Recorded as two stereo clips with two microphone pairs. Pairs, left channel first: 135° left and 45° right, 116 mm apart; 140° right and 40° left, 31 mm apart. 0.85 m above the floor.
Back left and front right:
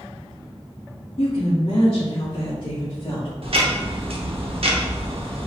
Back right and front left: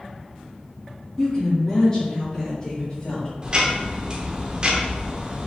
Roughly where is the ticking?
Ahead.